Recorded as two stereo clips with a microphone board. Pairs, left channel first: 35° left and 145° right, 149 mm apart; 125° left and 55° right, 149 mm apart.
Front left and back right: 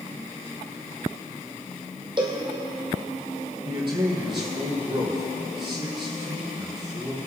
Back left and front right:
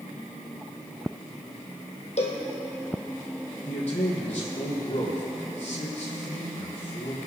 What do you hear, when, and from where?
2.2 s a cowbell: 160° left, 2.5 m
3.6 s a man speaking: 160° left, 5 m